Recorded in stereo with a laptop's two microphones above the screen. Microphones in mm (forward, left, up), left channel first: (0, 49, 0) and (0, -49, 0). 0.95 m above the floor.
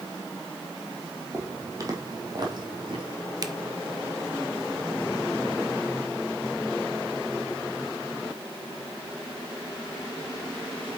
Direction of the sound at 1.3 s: 25° right (ahead or behind).